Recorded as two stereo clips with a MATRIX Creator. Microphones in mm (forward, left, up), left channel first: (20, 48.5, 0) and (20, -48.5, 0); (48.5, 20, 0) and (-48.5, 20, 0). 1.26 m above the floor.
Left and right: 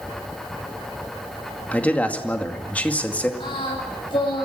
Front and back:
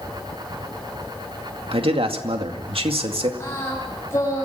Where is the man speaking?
165° left, 2 m.